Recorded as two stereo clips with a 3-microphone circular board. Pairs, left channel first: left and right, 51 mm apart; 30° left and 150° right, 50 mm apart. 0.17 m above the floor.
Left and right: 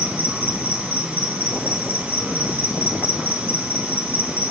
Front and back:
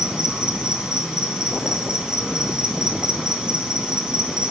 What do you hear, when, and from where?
0.0 s an insect: 85° right, 1.7 m